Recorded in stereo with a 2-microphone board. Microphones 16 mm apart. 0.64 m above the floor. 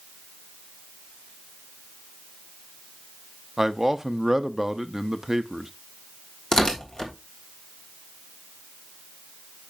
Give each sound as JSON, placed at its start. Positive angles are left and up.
{"t": 3.6, "sound": "a man speaking", "side_deg": -30, "distance_m": 0.6}
{"t": 6.5, "sound": "tearing paper", "side_deg": 50, "distance_m": 1.6}